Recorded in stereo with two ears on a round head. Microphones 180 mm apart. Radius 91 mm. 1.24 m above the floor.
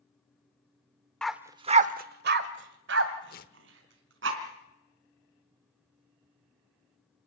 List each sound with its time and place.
1.2 s a dog barking: 5° left (ahead or behind), 0.9 m; by 4.3 s 60° right (ahead or behind), 4 m
3.3 s tearing paper: 50° left (ahead or behind), 1.2 m